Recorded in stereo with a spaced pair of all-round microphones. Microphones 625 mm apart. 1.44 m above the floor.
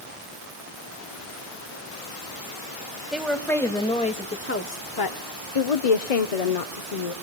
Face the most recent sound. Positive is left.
turn(degrees=65)  # may be behind; listen again after turning